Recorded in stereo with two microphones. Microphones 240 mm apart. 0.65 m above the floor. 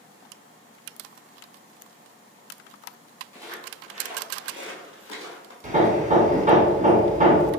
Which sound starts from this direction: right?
Hammering, at 5.6 s.